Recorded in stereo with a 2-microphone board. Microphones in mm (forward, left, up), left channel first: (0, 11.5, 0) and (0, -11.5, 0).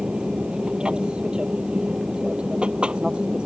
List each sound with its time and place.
0.0 s an aircraft: 45° right (ahead or behind); by 3.5 s 50° right (ahead or behind)